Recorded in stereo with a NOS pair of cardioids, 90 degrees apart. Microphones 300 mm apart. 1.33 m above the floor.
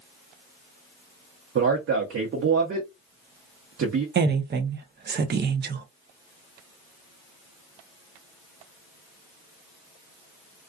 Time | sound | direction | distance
1.6 | a man speaking | 45° right | 0.9 m
4.2 | a woman speaking | 35° right | 0.6 m